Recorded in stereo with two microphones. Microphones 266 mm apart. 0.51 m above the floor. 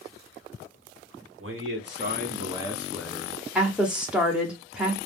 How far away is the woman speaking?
About 0.8 m.